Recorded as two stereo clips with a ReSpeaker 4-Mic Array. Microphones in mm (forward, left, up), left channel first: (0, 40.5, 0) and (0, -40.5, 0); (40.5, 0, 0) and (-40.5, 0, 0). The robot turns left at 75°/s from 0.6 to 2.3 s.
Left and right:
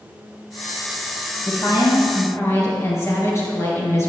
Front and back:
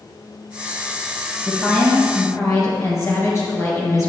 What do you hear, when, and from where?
1.4 s a woman speaking: 110° left, 2.5 m; by 4.1 s 45° left, 2.5 m